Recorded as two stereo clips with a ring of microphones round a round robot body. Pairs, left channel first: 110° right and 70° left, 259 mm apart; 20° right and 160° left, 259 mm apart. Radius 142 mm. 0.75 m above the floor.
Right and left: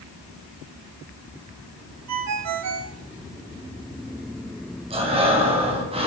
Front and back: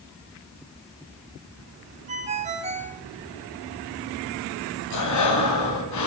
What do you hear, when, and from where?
2.1 s a ringtone: 90° left, 1.6 m
4.9 s breathing: straight ahead, 3 m